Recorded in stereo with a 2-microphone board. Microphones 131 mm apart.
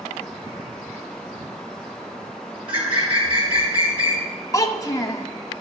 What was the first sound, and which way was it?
A bird, 40° right (ahead or behind).